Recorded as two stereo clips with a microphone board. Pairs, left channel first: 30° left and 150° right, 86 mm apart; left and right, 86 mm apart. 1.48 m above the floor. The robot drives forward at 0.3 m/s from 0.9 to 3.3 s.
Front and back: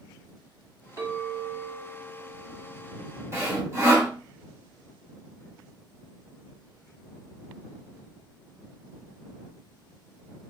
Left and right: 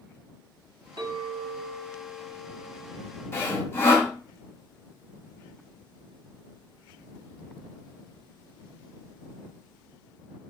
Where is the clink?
110° right, 1.5 m; by 4.1 s 135° right, 1.9 m.